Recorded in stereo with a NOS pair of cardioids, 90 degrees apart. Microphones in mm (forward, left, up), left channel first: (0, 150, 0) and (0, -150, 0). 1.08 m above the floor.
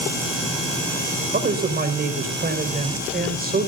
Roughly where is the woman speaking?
Ahead right.